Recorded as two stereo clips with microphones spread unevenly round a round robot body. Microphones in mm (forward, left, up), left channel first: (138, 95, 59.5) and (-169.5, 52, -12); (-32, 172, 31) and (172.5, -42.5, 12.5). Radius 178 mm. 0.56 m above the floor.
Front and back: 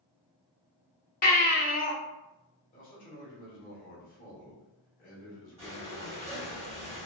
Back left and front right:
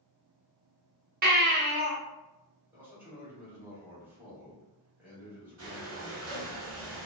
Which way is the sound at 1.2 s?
60° right.